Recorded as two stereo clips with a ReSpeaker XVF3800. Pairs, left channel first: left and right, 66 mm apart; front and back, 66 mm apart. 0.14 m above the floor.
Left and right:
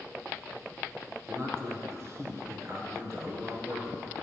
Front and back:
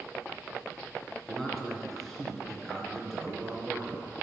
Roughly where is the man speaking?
Right.